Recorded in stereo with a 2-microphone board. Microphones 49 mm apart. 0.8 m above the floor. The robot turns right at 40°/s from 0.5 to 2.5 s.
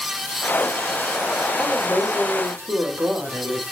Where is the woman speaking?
160° right, 5.5 m; by 3.6 s 120° right, 5.5 m.